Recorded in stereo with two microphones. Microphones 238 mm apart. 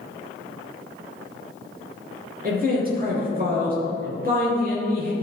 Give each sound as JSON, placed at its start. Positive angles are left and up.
{"t": 2.4, "sound": "a man speaking", "side_deg": -40, "distance_m": 3.0}